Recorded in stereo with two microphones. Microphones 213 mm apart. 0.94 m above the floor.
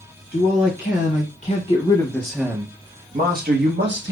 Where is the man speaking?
60° left (ahead or behind), 1.4 m; by 4.1 s 65° right (ahead or behind), 1.2 m.